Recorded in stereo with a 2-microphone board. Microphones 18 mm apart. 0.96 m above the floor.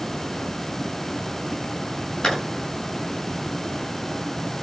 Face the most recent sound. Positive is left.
turn(degrees=45)  # may be behind; listen again after turning